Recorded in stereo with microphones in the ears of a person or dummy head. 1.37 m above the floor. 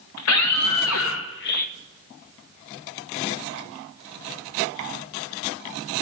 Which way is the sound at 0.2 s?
80° left.